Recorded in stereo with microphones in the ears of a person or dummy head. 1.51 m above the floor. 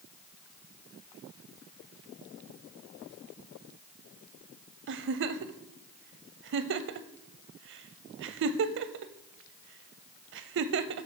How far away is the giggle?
About 0.5 m.